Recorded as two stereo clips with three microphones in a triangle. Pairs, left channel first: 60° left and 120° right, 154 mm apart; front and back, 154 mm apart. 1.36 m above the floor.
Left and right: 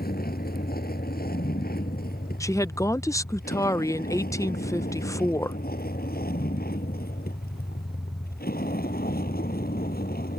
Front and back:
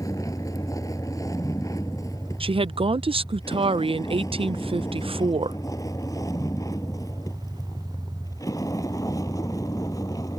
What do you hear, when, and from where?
0.0 s a vehicle: 70° left
2.4 s a woman speaking: 125° left